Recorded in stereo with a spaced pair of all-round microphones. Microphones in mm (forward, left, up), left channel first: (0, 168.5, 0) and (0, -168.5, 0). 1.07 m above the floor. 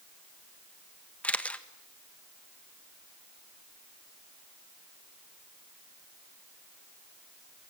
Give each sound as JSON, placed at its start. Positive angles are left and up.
{"t": 1.2, "sound": "a camera shutter", "side_deg": 5, "distance_m": 1.4}